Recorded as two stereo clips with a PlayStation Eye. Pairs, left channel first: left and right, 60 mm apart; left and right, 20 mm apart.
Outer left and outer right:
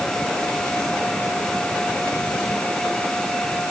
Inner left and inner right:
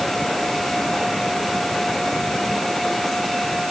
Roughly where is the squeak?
I don't hear a squeak.